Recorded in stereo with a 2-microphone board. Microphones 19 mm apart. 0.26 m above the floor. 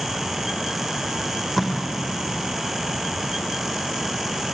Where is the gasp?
I don't hear a gasp.